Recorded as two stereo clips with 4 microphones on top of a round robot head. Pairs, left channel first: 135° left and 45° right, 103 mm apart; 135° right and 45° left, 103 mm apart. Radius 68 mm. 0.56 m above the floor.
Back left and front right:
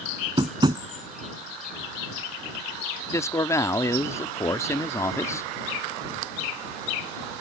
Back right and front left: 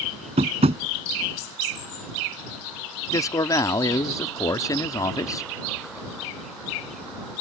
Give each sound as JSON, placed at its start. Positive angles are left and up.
{"t": 0.4, "sound": "tapping", "azimuth_deg": 10}
{"t": 3.1, "sound": "a man speaking", "azimuth_deg": -175}